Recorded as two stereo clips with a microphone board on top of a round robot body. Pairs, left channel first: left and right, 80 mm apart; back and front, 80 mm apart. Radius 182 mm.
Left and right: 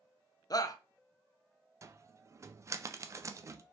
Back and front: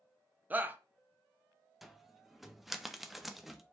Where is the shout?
65° left, 0.8 m.